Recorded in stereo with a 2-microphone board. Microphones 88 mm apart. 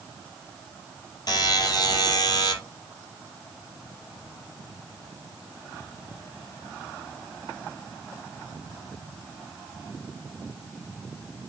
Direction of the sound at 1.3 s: 45° left (ahead or behind).